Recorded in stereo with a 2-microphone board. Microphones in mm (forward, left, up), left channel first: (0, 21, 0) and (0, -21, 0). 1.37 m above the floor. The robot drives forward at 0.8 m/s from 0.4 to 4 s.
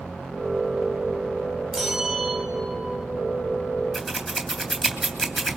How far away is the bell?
About 3 m.